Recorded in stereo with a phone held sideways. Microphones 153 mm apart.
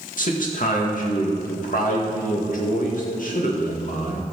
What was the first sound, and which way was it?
A man speaking, 60° left (ahead or behind).